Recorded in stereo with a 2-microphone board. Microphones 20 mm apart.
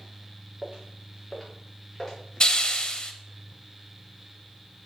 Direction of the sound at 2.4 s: 40° left (ahead or behind).